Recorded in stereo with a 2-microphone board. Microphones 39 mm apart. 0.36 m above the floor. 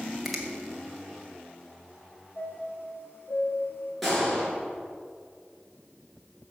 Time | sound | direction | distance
0.2 | a finger snap | 5° right (ahead or behind) | 1.9 m
2.4 | a chime | 65° left (ahead or behind) | 3 m
4.0 | a gunshot | centre (ahead or behind) | 5.5 m